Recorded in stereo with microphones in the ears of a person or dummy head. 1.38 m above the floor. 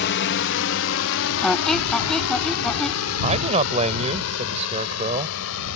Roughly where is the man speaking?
Right.